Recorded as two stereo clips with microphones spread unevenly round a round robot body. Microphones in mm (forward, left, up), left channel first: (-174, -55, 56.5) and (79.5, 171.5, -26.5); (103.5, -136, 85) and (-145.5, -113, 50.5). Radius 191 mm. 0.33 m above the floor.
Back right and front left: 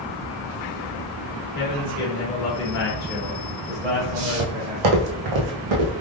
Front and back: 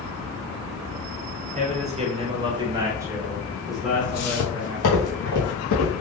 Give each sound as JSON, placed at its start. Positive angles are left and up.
{"t": 1.6, "sound": "a man speaking", "azimuth_deg": -145, "distance_m": 1.5}
{"t": 4.0, "sound": "footsteps", "azimuth_deg": 0, "distance_m": 0.7}